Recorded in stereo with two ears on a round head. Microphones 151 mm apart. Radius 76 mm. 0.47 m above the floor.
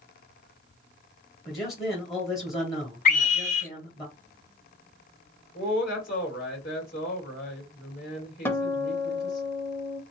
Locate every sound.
1.4 s a man speaking: 20° left (ahead or behind), 1.2 m
3.0 s a scream: 50° left (ahead or behind), 1.0 m
5.5 s a woman speaking: 55° left (ahead or behind), 2 m
8.4 s a guitar: 15° left (ahead or behind), 0.6 m